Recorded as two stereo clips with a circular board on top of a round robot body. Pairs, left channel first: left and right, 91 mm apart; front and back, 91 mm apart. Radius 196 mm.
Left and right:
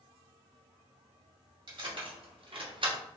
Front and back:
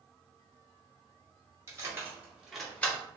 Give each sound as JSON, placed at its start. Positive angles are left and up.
{"t": 1.7, "sound": "keys jangling", "azimuth_deg": -120, "distance_m": 2.0}